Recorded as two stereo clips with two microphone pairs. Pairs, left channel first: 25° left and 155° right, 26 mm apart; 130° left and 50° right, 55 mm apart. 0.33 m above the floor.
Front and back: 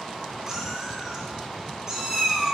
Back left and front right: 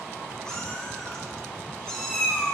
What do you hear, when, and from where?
0.5 s a cat meowing: 175° right, 0.6 m